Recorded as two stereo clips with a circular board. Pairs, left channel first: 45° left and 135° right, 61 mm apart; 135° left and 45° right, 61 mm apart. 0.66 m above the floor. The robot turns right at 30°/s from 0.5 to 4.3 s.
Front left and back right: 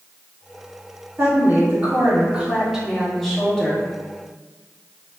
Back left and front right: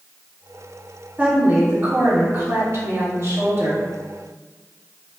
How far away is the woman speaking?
About 1.7 m.